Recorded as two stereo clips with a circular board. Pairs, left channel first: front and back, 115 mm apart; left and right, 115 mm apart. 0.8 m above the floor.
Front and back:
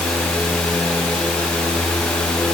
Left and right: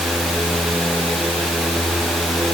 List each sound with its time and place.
Only background noise.